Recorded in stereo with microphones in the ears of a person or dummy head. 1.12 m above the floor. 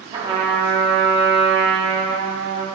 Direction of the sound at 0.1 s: 20° right (ahead or behind).